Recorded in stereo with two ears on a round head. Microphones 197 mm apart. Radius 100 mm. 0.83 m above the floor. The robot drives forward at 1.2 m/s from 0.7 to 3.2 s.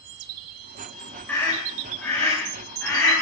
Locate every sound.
1.3 s a scream: 10° left (ahead or behind), 4 m; by 3.1 s 5° left (ahead or behind), 6 m